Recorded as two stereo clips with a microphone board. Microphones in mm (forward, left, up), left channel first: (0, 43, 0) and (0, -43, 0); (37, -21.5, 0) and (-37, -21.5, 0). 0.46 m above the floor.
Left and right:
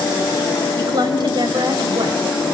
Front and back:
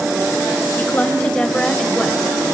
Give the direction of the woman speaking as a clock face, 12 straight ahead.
2 o'clock.